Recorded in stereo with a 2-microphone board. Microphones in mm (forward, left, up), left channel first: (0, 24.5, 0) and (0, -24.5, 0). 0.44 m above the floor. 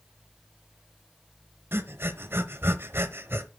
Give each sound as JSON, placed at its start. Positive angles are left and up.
{"t": 1.7, "sound": "breathing", "side_deg": -55, "distance_m": 1.0}